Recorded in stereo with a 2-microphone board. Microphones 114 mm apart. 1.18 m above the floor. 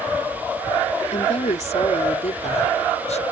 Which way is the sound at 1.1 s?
80° left.